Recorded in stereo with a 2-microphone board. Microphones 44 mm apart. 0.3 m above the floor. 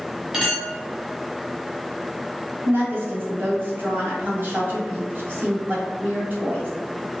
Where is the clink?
15° right (ahead or behind), 1.6 m.